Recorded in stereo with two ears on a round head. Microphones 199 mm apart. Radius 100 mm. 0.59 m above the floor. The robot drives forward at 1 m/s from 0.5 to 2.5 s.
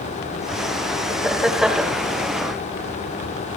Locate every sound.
1.1 s laughter: centre (ahead or behind), 3 m; by 2.0 s 5° right (ahead or behind), 2 m